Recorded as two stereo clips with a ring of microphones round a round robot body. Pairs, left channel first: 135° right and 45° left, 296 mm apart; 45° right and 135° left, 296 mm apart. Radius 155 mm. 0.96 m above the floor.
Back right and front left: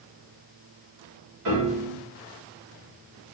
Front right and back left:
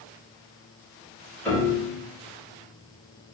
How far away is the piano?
About 2 m.